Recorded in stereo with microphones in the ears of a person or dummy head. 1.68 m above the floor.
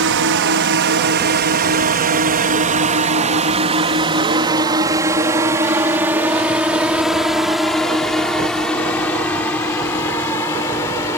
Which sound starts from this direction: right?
A drone, at 0.0 s.